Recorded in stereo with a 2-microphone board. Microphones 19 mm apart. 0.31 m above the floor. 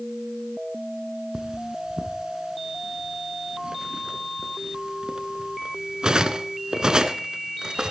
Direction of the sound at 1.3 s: 45° right (ahead or behind).